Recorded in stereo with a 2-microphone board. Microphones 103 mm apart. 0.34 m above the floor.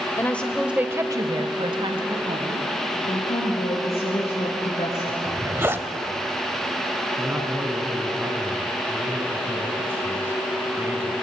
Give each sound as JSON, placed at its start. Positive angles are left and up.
{"t": 0.2, "sound": "a woman speaking", "side_deg": 25, "distance_m": 1.3}
{"t": 3.1, "sound": "a woman speaking", "side_deg": 75, "distance_m": 4.0}
{"t": 5.2, "sound": "a zipper", "side_deg": -25, "distance_m": 1.1}
{"t": 7.2, "sound": "a man speaking", "side_deg": -20, "distance_m": 2.5}